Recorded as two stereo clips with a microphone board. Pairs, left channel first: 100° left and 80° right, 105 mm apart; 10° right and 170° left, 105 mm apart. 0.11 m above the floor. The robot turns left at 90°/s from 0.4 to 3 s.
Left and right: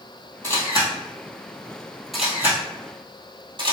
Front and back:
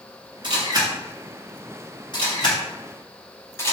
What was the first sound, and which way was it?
A camera shutter, 165° left.